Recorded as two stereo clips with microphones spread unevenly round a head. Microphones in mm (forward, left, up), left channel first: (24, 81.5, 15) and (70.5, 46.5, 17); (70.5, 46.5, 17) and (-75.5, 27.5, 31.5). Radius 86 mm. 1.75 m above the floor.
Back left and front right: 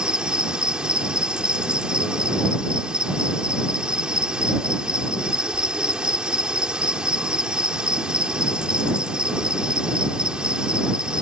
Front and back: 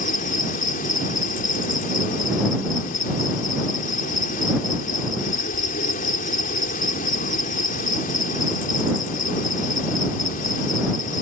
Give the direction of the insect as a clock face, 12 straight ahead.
11 o'clock.